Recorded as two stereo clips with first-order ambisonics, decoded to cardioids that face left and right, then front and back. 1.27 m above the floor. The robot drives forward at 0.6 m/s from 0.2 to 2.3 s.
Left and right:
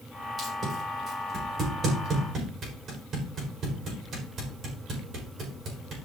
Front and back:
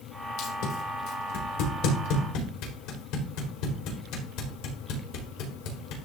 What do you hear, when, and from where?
0.4 s tape being pulled: 25° right, 5 m; by 6.0 s 30° right, 4 m